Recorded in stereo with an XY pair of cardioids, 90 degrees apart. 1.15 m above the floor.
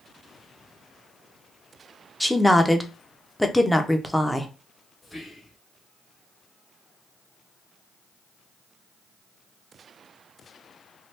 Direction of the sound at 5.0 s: 10° left.